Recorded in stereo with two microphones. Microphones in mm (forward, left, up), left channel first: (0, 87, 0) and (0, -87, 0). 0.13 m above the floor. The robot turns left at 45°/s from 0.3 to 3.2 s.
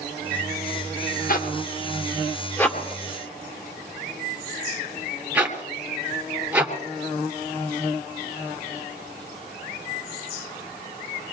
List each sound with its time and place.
1.3 s a zipper: 55° left (ahead or behind), 2.0 m; by 6.7 s 10° right (ahead or behind), 2.0 m